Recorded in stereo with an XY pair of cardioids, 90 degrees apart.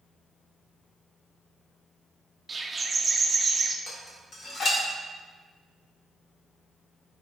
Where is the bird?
25° right, 0.5 m.